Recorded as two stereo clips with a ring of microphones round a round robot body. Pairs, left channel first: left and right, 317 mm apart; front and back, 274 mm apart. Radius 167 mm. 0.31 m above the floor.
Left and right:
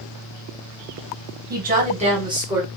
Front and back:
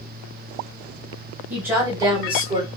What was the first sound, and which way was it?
A woman speaking, 100° right.